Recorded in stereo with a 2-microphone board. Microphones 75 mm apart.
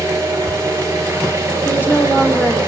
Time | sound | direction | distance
0.0 | an engine running | 35° right (ahead or behind) | 4.5 m
1.6 | a woman speaking | 25° left (ahead or behind) | 1.4 m